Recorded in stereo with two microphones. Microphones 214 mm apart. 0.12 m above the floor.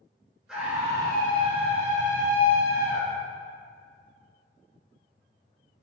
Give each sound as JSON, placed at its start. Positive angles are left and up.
{"t": 0.5, "sound": "a scream", "side_deg": -5, "distance_m": 1.7}